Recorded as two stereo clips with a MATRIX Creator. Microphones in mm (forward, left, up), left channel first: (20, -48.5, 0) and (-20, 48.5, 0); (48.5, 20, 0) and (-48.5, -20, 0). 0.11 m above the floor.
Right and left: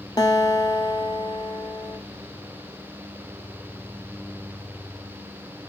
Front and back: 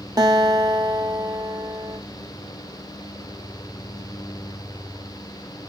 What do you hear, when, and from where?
0.2 s a guitar: 110° right, 1.7 m